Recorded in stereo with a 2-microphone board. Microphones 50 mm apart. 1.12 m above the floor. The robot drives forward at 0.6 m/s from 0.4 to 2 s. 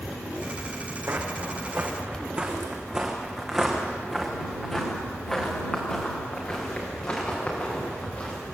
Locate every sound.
1.1 s footsteps: 45° right (ahead or behind), 3 m; by 8.3 s 30° left (ahead or behind), 7.5 m